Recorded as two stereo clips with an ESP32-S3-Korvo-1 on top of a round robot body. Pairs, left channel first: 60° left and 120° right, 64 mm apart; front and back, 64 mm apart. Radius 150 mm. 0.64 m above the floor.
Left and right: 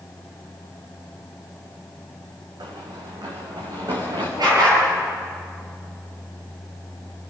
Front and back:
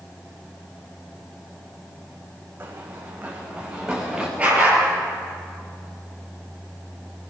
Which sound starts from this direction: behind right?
Running footsteps, at 2.6 s.